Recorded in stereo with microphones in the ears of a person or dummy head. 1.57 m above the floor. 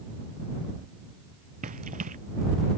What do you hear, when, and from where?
1.6 s running footsteps: 40° right (ahead or behind)